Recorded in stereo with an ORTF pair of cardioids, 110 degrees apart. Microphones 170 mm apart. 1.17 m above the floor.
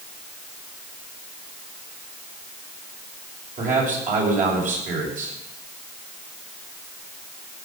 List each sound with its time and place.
3.6 s a man speaking: 50° right, 6.5 m